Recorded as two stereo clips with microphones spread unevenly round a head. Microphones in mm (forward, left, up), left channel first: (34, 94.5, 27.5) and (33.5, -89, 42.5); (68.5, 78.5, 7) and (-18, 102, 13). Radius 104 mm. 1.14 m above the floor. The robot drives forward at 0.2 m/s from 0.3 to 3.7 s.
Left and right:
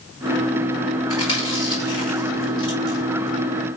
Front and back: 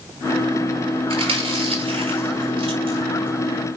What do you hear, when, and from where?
1.1 s chewing: 160° left, 4.5 m